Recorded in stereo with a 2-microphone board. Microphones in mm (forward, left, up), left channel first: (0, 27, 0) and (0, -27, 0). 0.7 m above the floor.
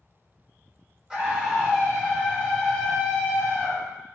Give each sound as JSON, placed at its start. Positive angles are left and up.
{"t": 1.1, "sound": "a scream", "side_deg": -10, "distance_m": 3.0}